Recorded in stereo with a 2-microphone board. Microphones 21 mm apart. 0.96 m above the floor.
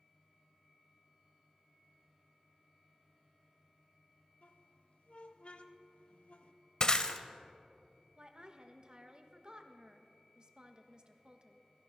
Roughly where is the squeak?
Left.